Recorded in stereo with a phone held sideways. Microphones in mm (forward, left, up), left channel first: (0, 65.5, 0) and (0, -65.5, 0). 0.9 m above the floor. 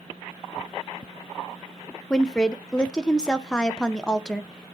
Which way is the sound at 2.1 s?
5° left (ahead or behind).